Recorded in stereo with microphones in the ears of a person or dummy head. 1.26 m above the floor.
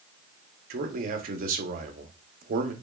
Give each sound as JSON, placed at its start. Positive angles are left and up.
{"t": 0.7, "sound": "a man speaking", "side_deg": -45, "distance_m": 0.8}